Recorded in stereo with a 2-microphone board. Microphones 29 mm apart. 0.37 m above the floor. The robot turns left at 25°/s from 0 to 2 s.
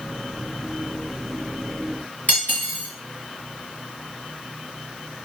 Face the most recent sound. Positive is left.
turn(degrees=65)  # may be behind; listen again after turning